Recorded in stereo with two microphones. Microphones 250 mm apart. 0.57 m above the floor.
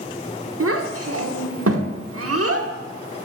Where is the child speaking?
70° right (ahead or behind), 0.8 m.